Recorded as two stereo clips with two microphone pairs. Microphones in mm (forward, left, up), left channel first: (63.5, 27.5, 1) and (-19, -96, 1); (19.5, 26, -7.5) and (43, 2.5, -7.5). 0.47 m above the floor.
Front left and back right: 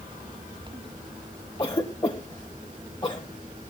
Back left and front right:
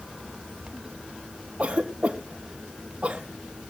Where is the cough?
Straight ahead, 1.6 m.